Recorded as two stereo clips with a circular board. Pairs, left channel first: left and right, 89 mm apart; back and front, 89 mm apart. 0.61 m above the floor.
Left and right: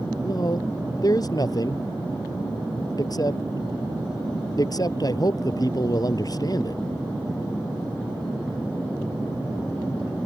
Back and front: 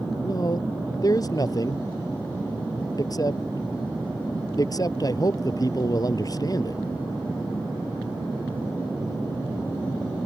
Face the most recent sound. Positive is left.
turn(degrees=135)